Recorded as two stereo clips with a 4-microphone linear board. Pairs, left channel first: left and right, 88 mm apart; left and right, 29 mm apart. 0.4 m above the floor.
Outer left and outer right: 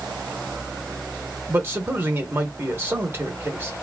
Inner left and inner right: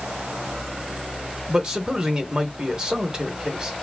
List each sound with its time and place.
1.5 s a man speaking: 25° right (ahead or behind), 0.9 m